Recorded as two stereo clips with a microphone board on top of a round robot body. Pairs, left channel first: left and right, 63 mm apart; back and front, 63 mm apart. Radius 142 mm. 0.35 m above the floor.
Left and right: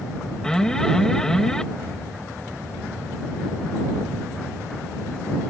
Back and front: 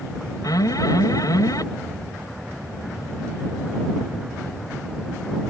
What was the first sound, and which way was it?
An alarm, 170° left.